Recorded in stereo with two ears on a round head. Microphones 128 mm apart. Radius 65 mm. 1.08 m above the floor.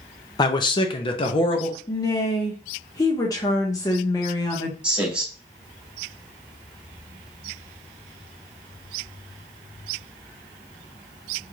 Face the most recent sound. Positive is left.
turn(degrees=-10)  # may be behind; listen again after turning